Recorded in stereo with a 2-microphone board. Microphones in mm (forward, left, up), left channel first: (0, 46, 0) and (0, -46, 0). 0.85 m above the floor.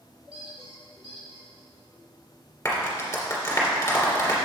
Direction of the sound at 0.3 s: 75° right (ahead or behind).